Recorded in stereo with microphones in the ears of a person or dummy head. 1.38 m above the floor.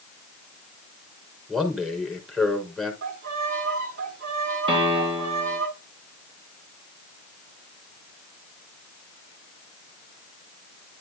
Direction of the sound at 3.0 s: 70° right (ahead or behind).